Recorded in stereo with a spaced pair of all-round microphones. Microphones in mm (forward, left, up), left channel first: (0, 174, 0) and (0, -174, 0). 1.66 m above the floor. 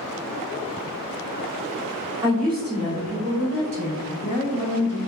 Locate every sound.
2.2 s a woman speaking: 15° right (ahead or behind), 0.8 m; by 5.0 s 75° right (ahead or behind), 1.3 m